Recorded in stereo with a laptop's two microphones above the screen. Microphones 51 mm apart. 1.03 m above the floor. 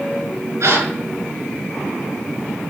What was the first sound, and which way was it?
A gasp, 80° right.